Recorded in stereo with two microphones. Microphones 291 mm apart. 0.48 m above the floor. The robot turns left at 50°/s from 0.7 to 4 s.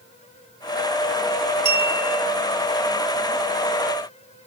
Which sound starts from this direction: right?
A clink, at 1.6 s.